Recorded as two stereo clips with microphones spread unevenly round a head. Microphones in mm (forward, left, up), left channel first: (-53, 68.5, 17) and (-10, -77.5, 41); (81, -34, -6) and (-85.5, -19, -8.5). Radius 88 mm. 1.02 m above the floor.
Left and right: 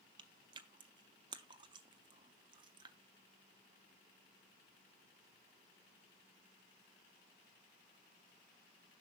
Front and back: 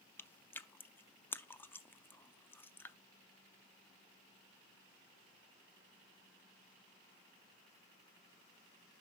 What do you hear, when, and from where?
0.2 s chewing: 75° right, 0.5 m